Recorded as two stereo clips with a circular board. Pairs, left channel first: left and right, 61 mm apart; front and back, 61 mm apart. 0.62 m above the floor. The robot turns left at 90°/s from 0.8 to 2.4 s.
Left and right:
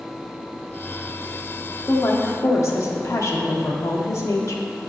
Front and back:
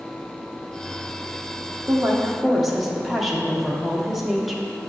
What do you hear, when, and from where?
1.9 s a woman speaking: 140° left, 1.0 m; by 4.6 s 95° left, 1.0 m